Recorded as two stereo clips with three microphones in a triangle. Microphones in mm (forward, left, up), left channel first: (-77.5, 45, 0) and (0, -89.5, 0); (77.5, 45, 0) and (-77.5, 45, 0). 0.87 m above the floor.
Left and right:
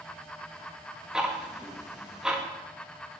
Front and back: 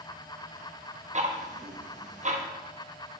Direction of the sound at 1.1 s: 145° right.